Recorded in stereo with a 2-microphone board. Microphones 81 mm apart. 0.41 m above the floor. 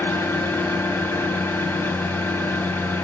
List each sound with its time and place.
0.0 s an engine running: 30° left (ahead or behind), 0.8 m